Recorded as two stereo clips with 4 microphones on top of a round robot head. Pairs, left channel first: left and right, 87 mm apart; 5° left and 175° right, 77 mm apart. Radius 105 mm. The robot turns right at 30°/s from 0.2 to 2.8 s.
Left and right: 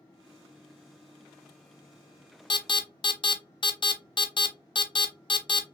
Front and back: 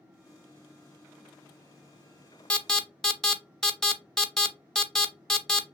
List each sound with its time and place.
2.5 s an alarm: 75° left, 0.8 m; by 5.6 s 85° left, 0.8 m